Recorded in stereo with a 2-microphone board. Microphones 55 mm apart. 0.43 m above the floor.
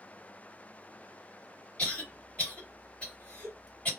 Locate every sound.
1.8 s a cough: 25° left (ahead or behind), 2 m